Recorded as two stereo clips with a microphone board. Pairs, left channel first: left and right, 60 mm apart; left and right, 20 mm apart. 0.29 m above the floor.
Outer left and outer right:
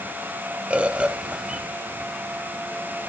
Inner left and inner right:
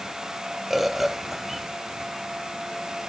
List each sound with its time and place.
0.7 s a bird: 20° right (ahead or behind), 0.7 m